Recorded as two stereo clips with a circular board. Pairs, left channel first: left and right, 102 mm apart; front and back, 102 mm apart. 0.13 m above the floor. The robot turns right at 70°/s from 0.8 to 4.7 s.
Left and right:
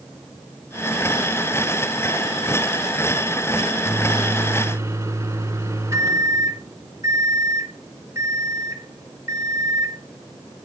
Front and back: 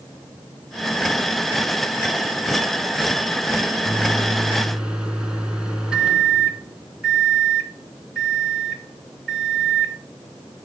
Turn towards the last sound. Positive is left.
turn(degrees=-110)